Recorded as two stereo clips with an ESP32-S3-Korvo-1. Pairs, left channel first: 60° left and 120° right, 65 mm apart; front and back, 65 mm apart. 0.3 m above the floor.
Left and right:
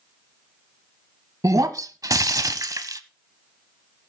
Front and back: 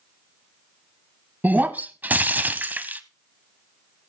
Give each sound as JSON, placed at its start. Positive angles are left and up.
{"t": 1.4, "sound": "breaking glass", "azimuth_deg": -120, "distance_m": 0.9}